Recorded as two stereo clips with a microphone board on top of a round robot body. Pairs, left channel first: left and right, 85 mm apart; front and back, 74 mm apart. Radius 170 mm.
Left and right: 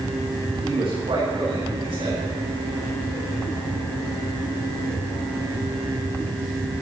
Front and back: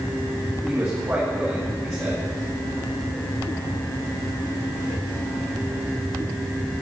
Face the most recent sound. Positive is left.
turn(degrees=-125)